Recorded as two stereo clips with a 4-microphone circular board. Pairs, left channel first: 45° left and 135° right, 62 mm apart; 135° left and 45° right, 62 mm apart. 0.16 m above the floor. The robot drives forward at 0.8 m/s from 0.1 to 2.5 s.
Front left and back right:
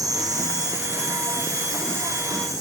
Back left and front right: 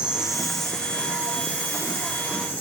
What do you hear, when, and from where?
0.0 s an insect: 120° right, 0.9 m; by 2.6 s 165° right, 2.5 m